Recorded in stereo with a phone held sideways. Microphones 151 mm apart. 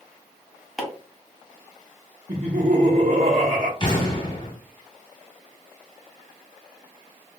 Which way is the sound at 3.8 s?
35° left (ahead or behind).